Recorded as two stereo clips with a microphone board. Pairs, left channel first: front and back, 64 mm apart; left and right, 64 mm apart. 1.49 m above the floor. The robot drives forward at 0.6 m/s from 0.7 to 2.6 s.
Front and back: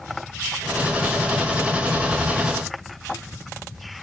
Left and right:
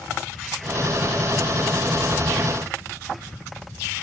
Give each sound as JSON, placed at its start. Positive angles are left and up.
{"t": 1.9, "sound": "breathing", "azimuth_deg": 145, "distance_m": 7.5}